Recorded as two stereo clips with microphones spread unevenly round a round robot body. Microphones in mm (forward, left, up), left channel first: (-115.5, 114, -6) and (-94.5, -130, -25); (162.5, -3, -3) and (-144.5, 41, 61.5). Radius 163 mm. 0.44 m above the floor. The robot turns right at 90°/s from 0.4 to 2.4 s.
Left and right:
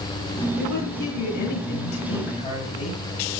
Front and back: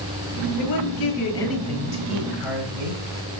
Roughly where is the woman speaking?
Ahead.